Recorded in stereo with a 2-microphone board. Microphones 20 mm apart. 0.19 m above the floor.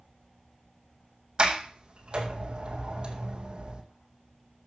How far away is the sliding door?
About 2.0 m.